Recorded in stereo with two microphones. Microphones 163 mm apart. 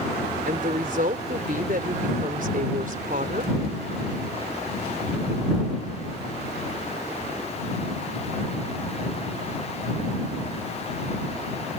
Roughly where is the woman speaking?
Right.